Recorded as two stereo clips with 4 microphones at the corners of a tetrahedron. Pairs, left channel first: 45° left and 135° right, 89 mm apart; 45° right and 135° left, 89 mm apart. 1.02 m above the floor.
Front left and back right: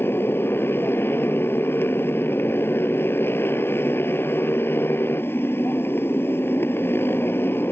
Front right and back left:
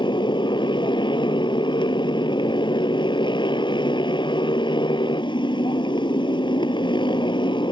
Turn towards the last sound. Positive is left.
turn(degrees=-20)